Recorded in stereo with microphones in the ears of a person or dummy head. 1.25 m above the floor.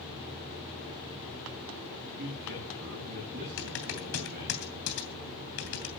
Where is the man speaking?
50° right (ahead or behind), 10 m.